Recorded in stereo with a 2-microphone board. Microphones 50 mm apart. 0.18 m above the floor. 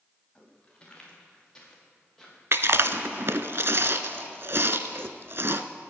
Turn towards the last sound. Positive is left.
turn(degrees=-55)  # may be behind; listen again after turning